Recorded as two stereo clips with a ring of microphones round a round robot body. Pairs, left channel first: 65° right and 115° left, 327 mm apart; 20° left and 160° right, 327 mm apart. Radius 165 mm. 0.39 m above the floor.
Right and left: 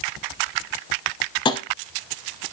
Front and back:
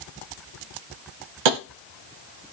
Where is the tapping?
145° right, 0.5 m.